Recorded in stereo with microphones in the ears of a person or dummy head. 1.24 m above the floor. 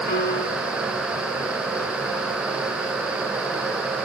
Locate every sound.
0.1 s a piano: 45° left (ahead or behind)